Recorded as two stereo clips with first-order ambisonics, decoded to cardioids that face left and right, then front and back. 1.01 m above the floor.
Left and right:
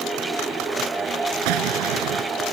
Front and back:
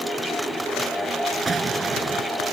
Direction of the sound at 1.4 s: 105° right.